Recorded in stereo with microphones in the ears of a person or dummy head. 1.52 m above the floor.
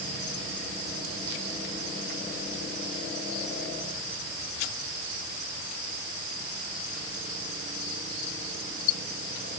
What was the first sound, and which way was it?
Only background noise.